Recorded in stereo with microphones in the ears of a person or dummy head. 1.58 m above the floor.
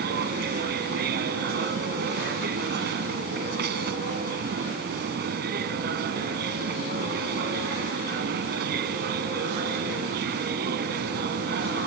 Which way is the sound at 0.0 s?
60° right (ahead or behind).